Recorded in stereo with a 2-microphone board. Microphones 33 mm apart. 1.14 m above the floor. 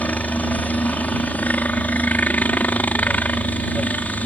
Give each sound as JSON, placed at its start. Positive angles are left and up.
{"t": 0.0, "sound": "a helicopter", "side_deg": 55}